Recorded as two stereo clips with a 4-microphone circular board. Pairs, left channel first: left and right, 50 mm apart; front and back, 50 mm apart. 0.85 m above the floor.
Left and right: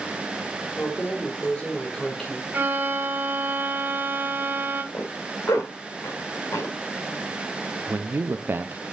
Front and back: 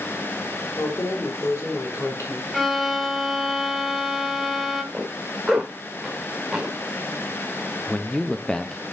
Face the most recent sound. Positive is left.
turn(degrees=-70)